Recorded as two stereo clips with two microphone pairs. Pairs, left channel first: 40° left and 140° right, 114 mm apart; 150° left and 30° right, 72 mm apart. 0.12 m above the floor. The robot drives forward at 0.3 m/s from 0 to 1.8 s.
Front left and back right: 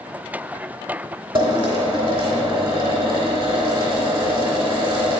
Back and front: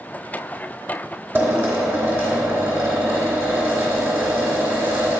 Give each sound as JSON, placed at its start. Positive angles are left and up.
{"t": 1.4, "sound": "a drill", "azimuth_deg": -95, "distance_m": 2.5}